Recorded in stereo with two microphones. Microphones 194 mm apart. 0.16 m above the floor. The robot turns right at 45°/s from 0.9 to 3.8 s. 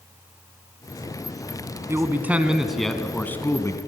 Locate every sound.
1.9 s a man speaking: 15° right (ahead or behind), 1.1 m; by 3.8 s 15° left (ahead or behind), 1.1 m